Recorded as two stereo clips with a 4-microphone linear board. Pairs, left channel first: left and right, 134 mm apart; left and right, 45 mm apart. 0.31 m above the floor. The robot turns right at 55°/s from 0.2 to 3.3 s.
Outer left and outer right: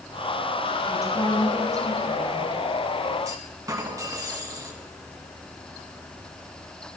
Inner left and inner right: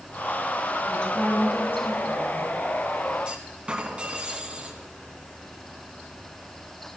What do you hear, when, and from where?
0.9 s a woman speaking: 15° left, 5.5 m; by 2.5 s 105° left, 5.5 m
3.2 s a clunk: 25° right (ahead or behind), 1.7 m